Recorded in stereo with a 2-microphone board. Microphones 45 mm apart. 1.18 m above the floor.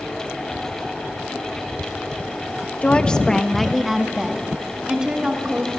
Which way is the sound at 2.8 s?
30° left (ahead or behind).